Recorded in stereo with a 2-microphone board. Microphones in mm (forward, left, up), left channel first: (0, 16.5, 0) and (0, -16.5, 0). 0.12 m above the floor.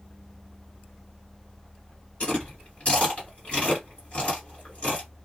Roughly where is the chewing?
Left.